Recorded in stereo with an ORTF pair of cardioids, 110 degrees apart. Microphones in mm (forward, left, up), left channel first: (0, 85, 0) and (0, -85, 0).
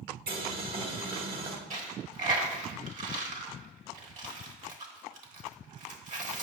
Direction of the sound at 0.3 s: 60° right.